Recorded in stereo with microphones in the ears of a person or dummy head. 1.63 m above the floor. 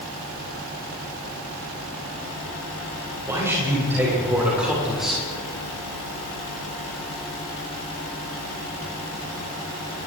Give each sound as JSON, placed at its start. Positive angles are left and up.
{"t": 3.2, "sound": "a man speaking", "side_deg": -15, "distance_m": 7.5}